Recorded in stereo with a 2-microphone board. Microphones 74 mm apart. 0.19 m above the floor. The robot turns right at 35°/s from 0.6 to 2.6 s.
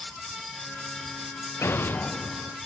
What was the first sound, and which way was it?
An explosion, 140° left.